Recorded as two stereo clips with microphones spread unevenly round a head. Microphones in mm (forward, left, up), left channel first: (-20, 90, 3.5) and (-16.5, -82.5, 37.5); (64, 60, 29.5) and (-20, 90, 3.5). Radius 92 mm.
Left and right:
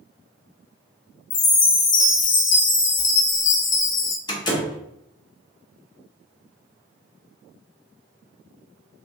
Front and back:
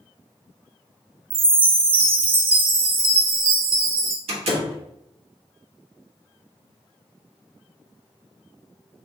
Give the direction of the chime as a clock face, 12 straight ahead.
7 o'clock.